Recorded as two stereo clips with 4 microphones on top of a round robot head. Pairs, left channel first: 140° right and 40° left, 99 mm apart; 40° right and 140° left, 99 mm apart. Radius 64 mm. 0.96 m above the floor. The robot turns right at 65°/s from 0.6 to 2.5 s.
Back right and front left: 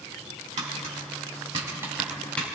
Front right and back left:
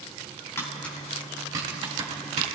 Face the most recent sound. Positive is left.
turn(degrees=150)